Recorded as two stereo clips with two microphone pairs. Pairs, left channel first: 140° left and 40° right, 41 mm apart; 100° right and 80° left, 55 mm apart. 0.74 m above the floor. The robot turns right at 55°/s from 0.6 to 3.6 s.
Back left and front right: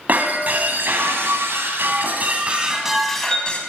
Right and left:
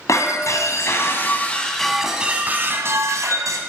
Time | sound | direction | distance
0.1 | breaking glass | 85° right | 2.5 m